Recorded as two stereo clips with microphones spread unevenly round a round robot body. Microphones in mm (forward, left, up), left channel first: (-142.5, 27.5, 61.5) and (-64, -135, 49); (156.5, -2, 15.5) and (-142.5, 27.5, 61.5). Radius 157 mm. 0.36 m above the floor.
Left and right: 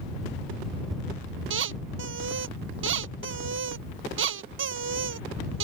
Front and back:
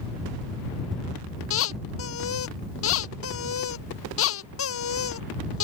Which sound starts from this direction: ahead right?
A squeak, at 1.5 s.